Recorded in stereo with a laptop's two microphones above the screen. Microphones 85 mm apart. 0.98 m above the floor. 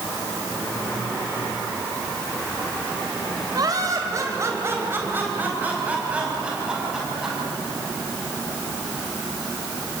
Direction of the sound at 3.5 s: 50° right (ahead or behind).